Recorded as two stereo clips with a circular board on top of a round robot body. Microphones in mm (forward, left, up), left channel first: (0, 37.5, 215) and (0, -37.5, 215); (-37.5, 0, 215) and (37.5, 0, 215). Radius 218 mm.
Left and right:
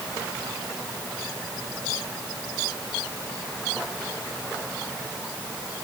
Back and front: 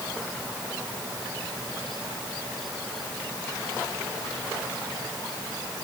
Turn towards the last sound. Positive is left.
No sound to turn to.